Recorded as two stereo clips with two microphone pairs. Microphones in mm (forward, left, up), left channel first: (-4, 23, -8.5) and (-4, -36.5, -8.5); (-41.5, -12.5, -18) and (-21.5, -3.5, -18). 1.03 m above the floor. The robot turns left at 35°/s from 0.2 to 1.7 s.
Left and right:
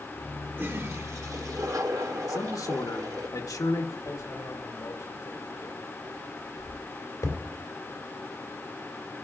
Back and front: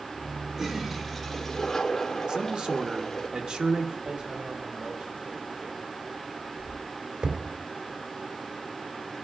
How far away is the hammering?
About 2.5 m.